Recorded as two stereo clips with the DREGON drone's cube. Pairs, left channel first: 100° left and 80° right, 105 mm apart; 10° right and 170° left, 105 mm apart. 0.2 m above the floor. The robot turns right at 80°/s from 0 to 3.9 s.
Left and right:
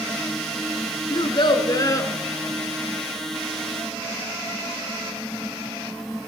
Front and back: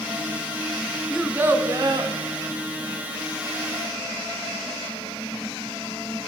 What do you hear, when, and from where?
1.1 s a child speaking: 80° left, 1.1 m; by 2.1 s 160° left, 1.1 m